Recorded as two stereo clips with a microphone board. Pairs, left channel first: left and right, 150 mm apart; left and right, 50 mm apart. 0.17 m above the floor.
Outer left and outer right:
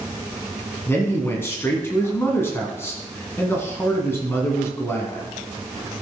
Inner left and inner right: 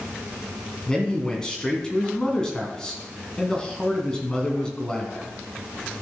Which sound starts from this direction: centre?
A man speaking, at 0.9 s.